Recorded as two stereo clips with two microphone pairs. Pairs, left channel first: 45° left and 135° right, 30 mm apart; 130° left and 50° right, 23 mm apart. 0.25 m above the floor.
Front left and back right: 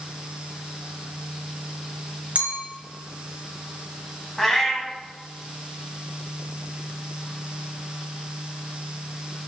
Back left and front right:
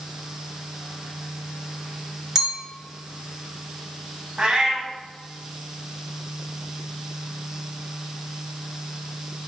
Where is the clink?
120° right, 1.5 m.